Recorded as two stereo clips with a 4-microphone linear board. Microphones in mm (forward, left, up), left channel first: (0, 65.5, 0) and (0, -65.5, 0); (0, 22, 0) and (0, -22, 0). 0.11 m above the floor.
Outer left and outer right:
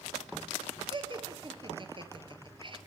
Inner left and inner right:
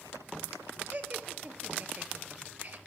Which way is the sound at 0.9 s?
40° right (ahead or behind).